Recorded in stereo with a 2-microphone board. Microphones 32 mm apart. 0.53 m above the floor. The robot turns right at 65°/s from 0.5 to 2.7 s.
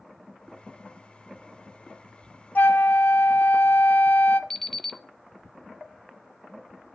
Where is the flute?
75° left (ahead or behind), 0.5 m; by 4.4 s 70° left (ahead or behind), 0.5 m.